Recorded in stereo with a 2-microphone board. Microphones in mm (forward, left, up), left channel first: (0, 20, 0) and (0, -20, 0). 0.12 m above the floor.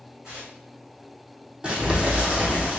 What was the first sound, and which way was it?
Tearing paper, 20° right (ahead or behind).